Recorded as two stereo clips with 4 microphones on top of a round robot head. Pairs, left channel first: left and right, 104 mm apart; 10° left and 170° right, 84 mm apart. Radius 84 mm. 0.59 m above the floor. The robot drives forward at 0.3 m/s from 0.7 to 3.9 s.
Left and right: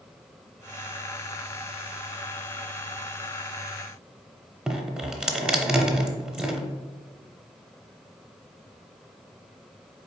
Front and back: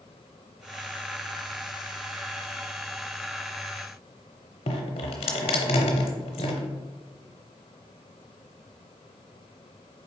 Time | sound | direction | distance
4.7 | dripping | 10° right | 0.5 m